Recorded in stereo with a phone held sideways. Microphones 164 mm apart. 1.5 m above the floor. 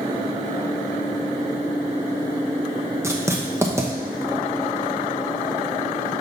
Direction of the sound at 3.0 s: 15° right (ahead or behind).